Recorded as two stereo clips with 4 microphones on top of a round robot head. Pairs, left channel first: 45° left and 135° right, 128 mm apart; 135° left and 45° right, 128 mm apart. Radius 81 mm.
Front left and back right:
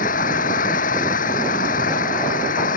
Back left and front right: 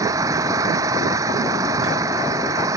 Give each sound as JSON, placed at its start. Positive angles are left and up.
{"t": 0.0, "sound": "an engine running", "azimuth_deg": 20}